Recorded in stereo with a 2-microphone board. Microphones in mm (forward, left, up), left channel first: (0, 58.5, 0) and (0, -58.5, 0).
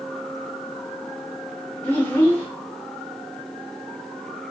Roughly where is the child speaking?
Centre.